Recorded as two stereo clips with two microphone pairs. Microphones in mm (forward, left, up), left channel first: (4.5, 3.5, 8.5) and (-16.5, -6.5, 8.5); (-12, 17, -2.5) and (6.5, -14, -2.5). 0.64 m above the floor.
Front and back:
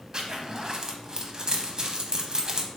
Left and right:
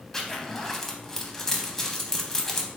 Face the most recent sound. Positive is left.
turn(degrees=-175)